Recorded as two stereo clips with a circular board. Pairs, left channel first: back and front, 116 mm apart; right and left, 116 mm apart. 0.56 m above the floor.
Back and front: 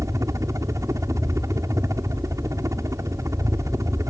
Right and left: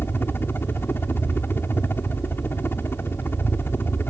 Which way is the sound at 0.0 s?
35° right.